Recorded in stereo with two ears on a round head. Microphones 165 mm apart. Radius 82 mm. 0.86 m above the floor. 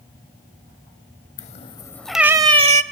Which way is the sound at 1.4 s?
45° left (ahead or behind).